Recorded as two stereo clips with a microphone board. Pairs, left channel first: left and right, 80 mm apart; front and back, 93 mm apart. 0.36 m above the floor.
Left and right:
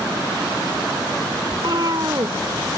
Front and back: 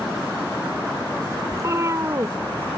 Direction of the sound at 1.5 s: 125° right.